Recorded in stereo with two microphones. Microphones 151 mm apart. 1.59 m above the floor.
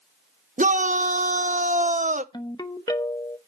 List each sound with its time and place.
0.6 s a shout: 55° right (ahead or behind), 0.8 m
2.3 s a ringtone: 25° left (ahead or behind), 0.9 m